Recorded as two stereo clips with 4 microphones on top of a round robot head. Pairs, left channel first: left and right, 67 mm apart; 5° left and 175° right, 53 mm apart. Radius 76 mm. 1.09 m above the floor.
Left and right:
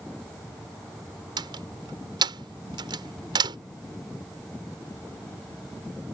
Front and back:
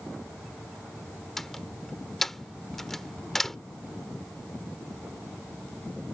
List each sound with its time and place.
1.4 s a door slam: 80° right